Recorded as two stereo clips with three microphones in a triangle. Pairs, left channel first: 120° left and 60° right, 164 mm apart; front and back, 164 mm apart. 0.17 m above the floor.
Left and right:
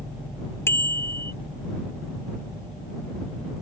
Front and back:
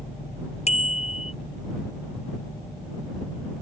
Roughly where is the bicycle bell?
Ahead left.